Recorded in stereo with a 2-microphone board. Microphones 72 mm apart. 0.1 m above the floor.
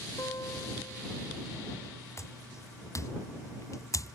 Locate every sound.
0.2 s a guitar: 50° left (ahead or behind)
2.2 s footsteps: 40° left (ahead or behind); by 4.2 s 50° left (ahead or behind)